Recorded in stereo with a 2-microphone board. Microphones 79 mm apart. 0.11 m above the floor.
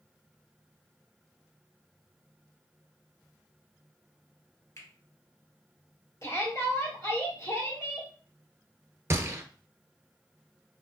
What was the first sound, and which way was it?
A finger snap, 40° left (ahead or behind).